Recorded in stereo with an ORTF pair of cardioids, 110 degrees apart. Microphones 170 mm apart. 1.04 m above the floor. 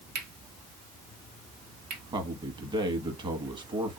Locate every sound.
0.1 s cutlery clinking: 70° right, 1.2 m
2.1 s a man speaking: 25° right, 1.2 m